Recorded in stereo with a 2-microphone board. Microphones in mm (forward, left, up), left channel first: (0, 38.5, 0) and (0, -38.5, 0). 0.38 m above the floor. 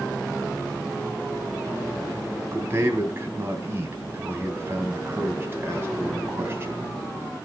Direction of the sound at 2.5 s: 30° right (ahead or behind).